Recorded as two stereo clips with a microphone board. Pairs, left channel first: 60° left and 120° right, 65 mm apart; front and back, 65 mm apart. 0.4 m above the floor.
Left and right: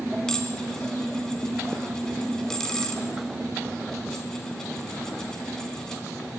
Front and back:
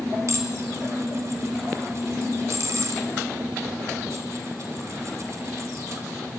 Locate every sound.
0.3 s dishes clattering: 140° left, 2.5 m